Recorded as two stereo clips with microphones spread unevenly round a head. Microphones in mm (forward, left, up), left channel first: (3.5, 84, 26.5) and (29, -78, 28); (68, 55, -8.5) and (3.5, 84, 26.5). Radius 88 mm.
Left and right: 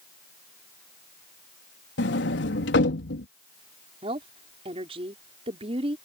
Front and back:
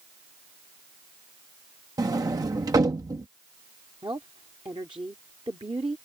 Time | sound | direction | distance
2.0 | a sliding door | 120° left | ?
4.0 | a woman speaking | 140° right | ?